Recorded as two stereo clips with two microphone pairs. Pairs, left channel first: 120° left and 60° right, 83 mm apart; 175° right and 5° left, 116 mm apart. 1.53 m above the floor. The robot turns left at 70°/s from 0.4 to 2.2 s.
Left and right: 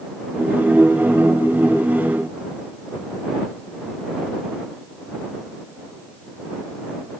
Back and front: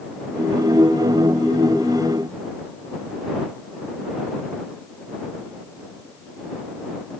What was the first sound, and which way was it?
Only background noise.